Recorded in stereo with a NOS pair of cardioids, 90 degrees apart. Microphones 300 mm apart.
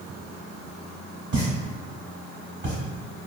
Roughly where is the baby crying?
I don't hear a baby crying.